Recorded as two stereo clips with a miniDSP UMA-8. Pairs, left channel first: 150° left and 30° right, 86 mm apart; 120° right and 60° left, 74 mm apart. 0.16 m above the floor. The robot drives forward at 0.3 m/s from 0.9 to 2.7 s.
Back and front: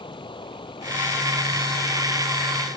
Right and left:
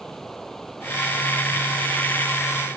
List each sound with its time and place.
0.0 s running water: 155° left; by 2.8 s 160° left